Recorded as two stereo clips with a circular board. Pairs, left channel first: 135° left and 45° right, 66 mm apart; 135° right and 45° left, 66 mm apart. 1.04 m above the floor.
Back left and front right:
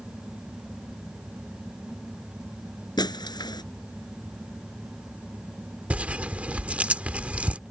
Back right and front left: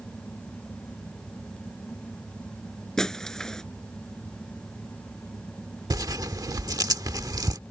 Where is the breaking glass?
145° left.